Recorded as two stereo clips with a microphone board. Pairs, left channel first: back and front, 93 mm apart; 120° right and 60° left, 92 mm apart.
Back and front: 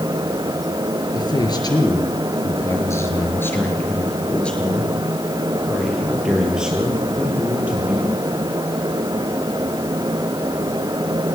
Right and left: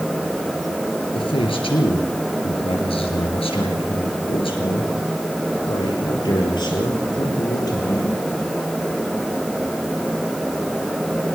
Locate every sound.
1.1 s a man speaking: 145° right, 5.5 m; by 8.2 s 70° right, 8 m